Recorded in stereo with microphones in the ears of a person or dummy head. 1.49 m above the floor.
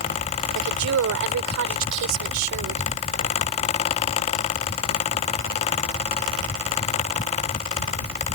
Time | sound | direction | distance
0.6 | a woman speaking | 80° right | ?